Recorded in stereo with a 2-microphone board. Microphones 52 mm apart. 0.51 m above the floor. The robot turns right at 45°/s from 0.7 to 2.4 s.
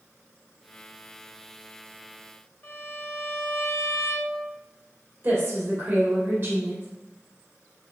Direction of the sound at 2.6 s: 45° left (ahead or behind).